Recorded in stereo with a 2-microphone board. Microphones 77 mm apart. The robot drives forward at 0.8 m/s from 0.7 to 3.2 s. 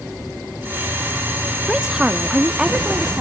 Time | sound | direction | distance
1.7 | a woman speaking | 10° right (ahead or behind) | 0.7 m